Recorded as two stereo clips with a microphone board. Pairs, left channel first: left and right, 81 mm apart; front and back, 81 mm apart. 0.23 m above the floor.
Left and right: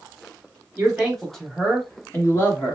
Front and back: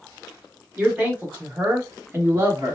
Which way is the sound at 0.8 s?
125° right.